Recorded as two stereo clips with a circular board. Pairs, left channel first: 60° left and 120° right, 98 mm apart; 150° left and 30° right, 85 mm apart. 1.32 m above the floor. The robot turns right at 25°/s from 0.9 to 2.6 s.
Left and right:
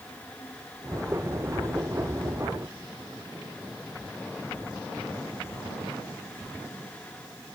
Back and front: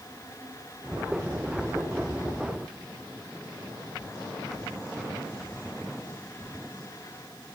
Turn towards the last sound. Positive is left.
No sound to turn to.